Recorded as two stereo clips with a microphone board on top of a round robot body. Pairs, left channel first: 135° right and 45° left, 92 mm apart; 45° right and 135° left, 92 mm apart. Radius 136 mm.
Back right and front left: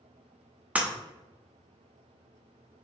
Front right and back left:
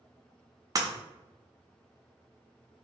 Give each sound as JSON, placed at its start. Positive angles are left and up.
{"t": 0.8, "sound": "breaking glass", "azimuth_deg": 110, "distance_m": 0.8}